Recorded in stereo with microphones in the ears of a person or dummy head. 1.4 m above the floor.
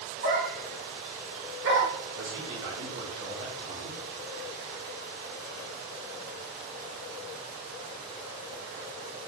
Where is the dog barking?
45° right (ahead or behind), 1.7 m; by 1.9 s 65° right (ahead or behind), 2.5 m.